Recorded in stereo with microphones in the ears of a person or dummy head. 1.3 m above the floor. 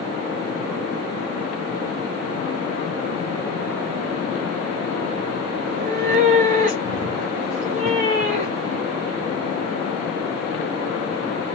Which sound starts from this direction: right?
A cat meowing, at 5.6 s.